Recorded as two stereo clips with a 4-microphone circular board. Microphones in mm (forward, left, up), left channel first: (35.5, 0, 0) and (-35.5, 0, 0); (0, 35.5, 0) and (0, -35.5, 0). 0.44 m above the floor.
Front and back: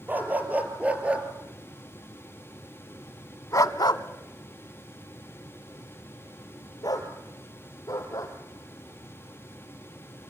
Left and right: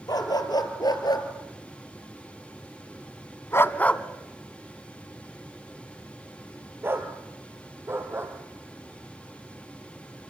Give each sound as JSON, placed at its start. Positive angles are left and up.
{"t": 0.1, "sound": "a dog barking", "azimuth_deg": 115, "distance_m": 3.0}